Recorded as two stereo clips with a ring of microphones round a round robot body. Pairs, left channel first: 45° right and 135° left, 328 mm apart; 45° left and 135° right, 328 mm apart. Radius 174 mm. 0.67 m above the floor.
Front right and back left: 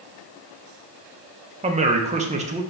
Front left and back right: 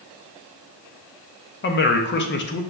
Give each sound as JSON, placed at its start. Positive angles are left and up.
{"t": 1.6, "sound": "a man speaking", "azimuth_deg": 80, "distance_m": 0.6}